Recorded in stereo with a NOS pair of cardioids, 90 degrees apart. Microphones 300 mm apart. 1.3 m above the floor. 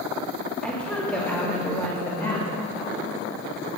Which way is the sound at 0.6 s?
5° left.